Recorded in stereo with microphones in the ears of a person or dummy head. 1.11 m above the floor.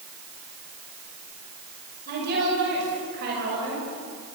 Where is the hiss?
I don't hear a hiss.